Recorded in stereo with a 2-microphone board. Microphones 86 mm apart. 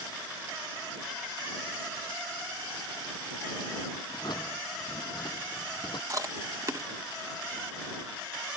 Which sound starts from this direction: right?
Chewing, at 6.1 s.